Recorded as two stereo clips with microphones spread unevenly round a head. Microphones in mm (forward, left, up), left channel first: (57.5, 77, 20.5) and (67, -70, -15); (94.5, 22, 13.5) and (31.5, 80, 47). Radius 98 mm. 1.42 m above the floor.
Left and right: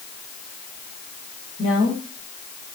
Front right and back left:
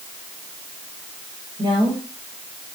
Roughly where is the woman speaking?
Left.